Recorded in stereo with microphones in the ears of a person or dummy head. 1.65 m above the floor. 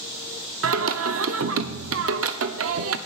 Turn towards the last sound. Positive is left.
turn(degrees=-75)  # may be behind; listen again after turning